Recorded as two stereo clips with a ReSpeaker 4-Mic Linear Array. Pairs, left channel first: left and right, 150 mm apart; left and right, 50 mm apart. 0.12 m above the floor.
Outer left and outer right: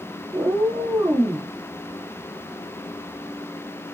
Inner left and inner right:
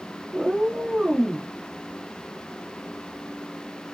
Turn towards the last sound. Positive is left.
turn(degrees=-15)  # may be behind; listen again after turning